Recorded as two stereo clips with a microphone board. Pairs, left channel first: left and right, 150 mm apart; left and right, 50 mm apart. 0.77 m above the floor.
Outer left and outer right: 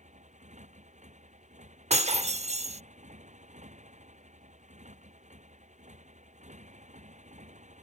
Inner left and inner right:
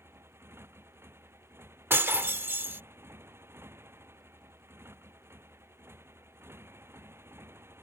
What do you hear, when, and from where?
0.0 s a motorcycle: 55° right (ahead or behind)
1.9 s breaking glass: 50° right (ahead or behind)